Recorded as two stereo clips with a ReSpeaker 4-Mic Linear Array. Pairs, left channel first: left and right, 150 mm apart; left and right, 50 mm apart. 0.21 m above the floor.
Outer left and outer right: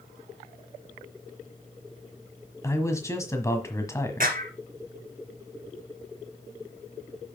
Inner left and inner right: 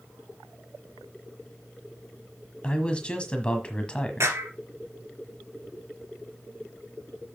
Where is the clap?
70° right (ahead or behind), 2 m.